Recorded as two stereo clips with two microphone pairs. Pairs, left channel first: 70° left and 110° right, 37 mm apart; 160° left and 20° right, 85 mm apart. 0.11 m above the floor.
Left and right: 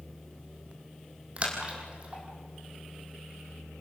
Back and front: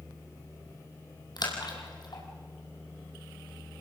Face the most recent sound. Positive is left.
turn(degrees=-165)